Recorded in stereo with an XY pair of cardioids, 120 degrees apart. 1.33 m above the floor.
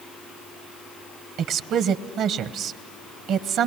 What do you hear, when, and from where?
1.4 s a woman speaking: 70° right, 1.0 m